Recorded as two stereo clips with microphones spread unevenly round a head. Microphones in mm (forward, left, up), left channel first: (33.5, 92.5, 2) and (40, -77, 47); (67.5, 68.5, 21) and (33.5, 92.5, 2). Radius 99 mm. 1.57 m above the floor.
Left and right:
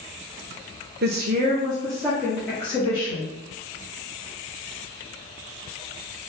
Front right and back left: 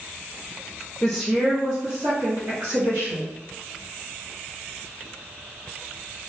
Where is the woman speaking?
90° right, 0.6 m; by 3.3 s 170° left, 1.5 m.